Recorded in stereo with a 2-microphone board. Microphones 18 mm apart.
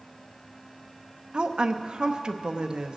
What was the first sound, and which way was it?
A woman speaking, 45° right (ahead or behind).